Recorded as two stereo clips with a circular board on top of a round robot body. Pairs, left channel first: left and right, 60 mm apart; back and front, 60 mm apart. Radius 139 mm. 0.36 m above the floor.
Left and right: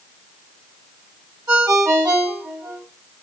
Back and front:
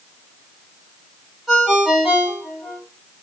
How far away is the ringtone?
About 2.5 m.